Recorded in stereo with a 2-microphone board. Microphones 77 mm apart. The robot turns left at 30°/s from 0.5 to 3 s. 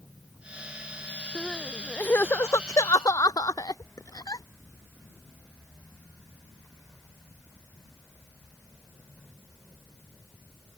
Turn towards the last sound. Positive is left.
turn(degrees=55)  # may be behind; listen again after turning